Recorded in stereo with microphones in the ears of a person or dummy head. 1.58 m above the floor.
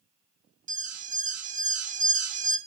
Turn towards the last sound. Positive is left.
turn(degrees=-45)  # may be behind; listen again after turning